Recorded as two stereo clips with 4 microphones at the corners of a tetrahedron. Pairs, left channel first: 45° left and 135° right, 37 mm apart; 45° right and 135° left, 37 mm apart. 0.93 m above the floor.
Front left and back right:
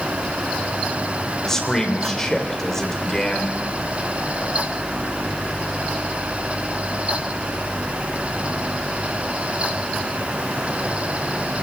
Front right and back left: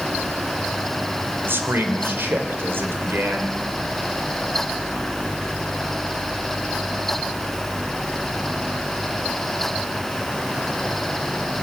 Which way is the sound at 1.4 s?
120° left.